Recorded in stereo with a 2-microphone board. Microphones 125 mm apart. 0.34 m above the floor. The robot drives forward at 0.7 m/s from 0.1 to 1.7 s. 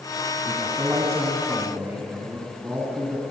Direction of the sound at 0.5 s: 25° right (ahead or behind).